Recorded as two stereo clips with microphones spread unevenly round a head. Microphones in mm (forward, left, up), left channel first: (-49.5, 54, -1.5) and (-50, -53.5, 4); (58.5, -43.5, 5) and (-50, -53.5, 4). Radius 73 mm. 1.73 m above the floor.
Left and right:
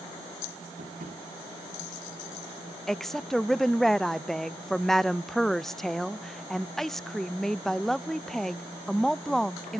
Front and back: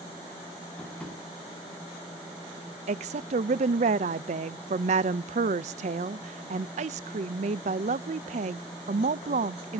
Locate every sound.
0.8 s tapping: 75° right, 8 m
2.9 s a woman speaking: straight behind, 0.5 m